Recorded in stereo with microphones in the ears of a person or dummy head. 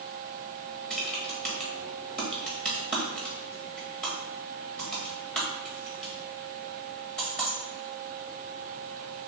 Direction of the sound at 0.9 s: 5° left (ahead or behind).